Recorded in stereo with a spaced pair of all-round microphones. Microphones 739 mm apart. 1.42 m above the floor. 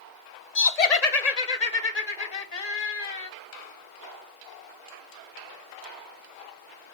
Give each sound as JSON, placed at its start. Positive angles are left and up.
{"t": 0.6, "sound": "laughter", "side_deg": 55, "distance_m": 0.9}